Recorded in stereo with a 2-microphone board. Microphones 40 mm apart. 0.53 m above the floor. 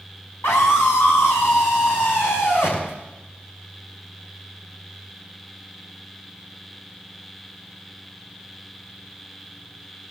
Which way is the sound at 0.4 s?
75° left (ahead or behind).